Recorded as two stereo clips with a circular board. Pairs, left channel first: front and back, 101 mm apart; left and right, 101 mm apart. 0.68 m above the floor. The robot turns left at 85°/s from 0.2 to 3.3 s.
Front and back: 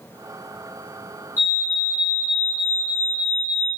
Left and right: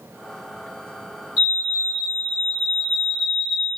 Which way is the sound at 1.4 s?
165° right.